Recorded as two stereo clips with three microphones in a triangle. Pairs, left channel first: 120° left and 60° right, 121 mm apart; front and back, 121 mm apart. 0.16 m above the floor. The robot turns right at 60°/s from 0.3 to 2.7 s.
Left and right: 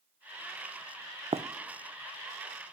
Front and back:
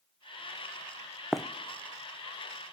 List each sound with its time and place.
1.3 s running footsteps: 95° right, 0.5 m; by 1.4 s 85° right, 0.5 m